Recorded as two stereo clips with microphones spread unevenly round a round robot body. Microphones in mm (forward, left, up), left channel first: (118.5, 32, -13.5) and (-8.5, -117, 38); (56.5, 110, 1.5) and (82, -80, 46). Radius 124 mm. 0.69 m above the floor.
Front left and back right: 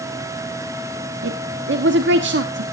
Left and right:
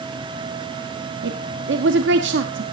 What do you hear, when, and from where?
1.2 s a woman speaking: 110° right, 1.4 m